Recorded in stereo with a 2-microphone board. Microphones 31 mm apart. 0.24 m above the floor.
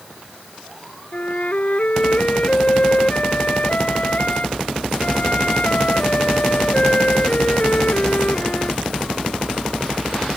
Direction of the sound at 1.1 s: 50° left (ahead or behind).